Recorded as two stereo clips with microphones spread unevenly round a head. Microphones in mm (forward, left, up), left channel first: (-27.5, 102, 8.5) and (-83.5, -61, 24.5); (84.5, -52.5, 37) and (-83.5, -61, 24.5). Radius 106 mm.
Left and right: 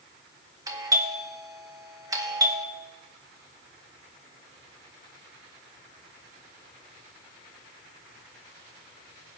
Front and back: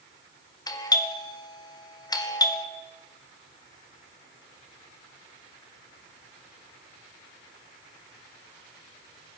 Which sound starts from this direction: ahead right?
A doorbell, at 0.7 s.